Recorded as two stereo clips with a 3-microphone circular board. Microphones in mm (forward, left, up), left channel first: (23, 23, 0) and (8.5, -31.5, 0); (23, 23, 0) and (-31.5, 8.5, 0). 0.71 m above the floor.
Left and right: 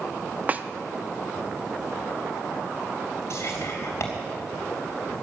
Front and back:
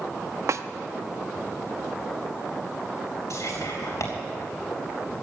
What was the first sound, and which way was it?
A snare drum, 160° right.